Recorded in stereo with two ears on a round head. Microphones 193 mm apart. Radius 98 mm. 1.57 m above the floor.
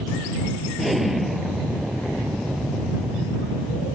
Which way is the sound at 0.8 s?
Centre (ahead or behind).